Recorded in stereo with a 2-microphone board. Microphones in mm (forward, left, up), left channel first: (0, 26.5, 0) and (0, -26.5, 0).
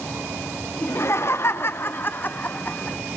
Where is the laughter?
50° left (ahead or behind), 0.9 m; by 3.0 s 25° left (ahead or behind), 1.4 m.